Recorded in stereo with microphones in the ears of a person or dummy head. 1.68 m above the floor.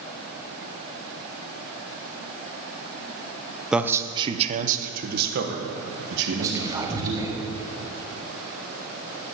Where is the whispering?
15° right (ahead or behind), 1.8 m.